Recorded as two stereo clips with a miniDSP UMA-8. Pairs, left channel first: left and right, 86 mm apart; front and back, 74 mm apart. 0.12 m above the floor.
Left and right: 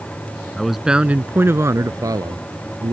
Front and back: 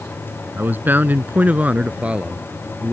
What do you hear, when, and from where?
0.6 s a man speaking: 170° left; by 2.9 s 100° right